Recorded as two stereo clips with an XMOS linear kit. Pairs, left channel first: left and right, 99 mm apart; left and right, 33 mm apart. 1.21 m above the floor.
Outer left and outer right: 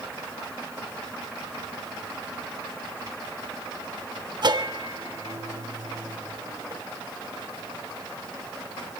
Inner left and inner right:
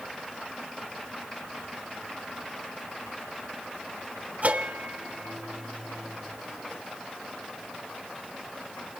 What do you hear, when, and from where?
4.4 s a bell: 50° right (ahead or behind), 1.2 m